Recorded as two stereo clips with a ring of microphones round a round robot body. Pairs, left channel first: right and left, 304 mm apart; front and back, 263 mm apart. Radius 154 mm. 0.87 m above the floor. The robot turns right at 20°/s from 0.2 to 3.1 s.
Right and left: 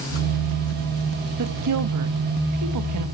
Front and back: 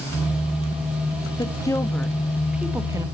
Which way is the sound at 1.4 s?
70° left.